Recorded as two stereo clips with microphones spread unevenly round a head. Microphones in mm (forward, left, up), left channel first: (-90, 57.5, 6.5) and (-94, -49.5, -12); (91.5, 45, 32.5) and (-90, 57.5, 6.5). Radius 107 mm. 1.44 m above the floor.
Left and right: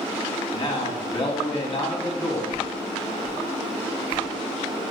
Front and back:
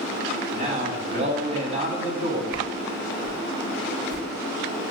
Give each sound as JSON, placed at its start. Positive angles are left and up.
{"t": 0.5, "sound": "a man speaking", "azimuth_deg": 125, "distance_m": 3.0}
{"t": 2.5, "sound": "a whoosh", "azimuth_deg": 130, "distance_m": 3.0}